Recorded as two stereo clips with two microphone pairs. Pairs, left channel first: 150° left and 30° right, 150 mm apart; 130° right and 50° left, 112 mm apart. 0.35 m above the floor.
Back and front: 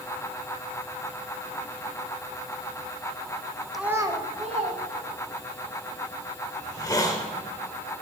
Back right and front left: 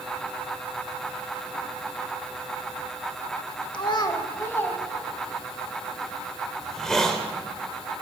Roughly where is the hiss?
Behind left.